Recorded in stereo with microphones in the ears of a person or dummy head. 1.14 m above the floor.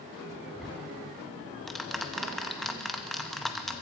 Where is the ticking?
Centre (ahead or behind), 0.6 m.